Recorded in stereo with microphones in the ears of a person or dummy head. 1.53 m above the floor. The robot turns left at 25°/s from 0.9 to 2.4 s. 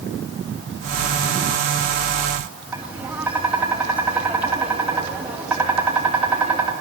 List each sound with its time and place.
2.7 s tapping: 10° right (ahead or behind), 2.5 m